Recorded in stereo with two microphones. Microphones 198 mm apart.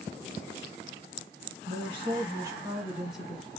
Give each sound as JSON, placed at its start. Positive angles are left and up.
{"t": 1.7, "sound": "a woman speaking", "side_deg": -30, "distance_m": 1.6}